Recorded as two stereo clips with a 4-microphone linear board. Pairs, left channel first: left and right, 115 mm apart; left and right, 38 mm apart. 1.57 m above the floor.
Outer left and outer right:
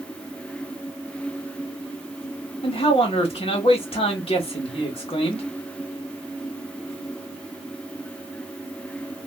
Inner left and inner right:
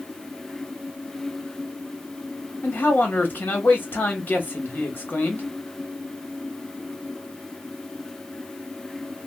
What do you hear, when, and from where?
2.6 s a man speaking: 55° left (ahead or behind), 1.1 m